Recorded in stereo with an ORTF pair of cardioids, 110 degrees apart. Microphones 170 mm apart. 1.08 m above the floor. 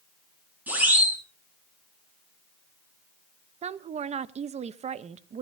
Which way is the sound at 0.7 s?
10° right.